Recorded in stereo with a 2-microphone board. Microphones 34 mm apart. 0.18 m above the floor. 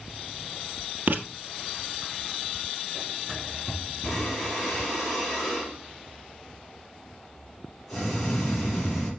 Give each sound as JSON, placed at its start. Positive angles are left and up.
{"t": 1.1, "sound": "writing", "side_deg": -60, "distance_m": 1.2}
{"t": 4.0, "sound": "breathing", "side_deg": 5, "distance_m": 4.5}